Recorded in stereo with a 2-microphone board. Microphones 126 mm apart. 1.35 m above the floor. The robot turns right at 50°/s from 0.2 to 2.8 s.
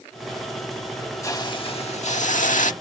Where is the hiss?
25° left; by 2.7 s 100° left.